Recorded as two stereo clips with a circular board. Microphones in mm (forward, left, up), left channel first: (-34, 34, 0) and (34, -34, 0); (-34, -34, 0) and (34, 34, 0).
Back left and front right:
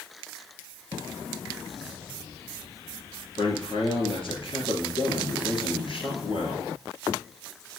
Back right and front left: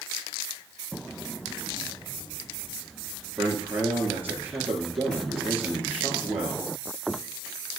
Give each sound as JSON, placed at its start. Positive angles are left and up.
{"t": 3.4, "sound": "a man speaking", "azimuth_deg": 115, "distance_m": 3.5}